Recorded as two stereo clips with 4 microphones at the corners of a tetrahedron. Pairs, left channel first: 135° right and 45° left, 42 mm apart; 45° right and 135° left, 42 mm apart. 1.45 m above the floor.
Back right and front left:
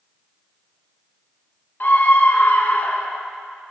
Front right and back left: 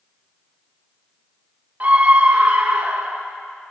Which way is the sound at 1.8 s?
175° right.